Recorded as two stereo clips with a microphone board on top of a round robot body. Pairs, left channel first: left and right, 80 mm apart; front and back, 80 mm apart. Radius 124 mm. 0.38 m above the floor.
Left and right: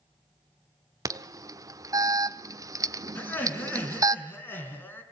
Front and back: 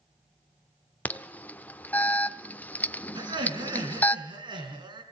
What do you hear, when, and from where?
1.1 s an alarm: 65° right, 1.1 m
3.1 s laughter: 155° left, 5 m